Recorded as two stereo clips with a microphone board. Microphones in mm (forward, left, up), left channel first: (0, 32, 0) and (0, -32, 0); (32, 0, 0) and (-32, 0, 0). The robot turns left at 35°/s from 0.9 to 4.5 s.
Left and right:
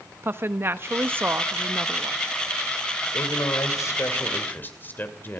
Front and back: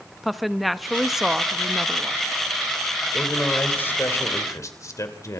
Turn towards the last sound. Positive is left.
turn(degrees=35)